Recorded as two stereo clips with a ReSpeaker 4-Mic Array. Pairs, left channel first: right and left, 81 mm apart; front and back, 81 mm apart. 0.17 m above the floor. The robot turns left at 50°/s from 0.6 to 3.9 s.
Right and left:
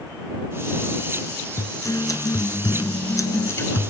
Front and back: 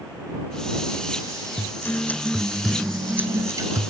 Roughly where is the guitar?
Ahead right.